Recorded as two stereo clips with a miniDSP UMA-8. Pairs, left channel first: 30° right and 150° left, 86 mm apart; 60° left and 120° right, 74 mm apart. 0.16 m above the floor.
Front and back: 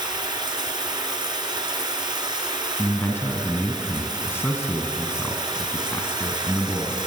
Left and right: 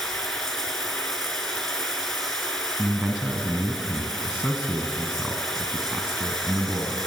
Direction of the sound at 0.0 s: 145° left.